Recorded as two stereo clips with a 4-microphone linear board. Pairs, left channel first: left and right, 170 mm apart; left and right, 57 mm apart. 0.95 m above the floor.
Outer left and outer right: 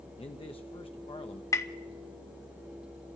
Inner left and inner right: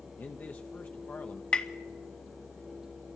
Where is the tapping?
20° left (ahead or behind), 1.0 m.